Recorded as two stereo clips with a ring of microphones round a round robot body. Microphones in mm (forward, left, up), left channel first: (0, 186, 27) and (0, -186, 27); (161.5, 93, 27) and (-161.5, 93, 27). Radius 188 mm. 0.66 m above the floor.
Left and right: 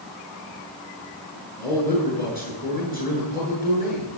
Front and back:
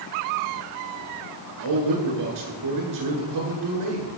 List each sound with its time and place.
1.6 s a man speaking: 160° left, 9 m